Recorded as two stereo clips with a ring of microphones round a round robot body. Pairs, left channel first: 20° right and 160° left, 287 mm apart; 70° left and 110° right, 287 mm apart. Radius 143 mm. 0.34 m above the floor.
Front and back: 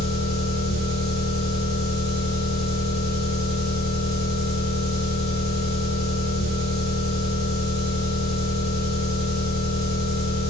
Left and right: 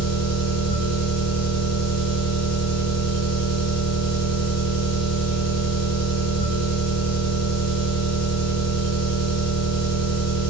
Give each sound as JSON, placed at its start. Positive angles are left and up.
{"t": 0.0, "sound": "an engine running", "azimuth_deg": 140, "distance_m": 2.0}